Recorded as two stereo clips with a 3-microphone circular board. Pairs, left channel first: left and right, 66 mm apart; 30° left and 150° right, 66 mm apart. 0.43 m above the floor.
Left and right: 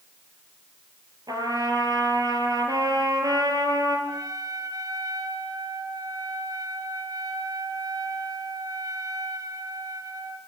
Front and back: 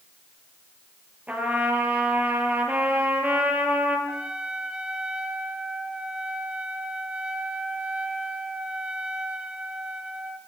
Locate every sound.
1.3 s a trumpet: 80° right, 6 m
4.1 s a trumpet: 75° right, 3 m